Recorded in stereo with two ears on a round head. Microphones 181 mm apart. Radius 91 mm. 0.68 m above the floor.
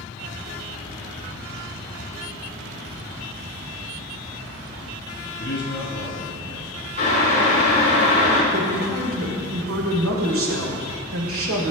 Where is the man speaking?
55° left (ahead or behind), 3.5 m.